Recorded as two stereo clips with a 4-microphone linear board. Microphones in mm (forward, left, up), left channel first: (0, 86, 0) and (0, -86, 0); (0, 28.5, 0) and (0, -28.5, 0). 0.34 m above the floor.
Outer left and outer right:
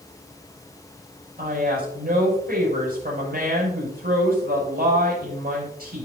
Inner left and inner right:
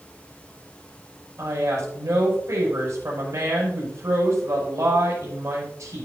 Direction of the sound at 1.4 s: 65° right (ahead or behind).